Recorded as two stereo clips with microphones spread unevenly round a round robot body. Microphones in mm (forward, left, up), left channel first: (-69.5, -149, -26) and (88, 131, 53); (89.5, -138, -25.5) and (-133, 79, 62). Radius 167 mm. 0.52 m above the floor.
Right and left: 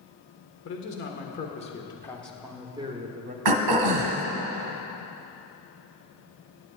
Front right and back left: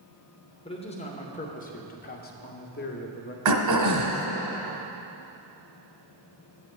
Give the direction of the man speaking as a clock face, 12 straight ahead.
3 o'clock.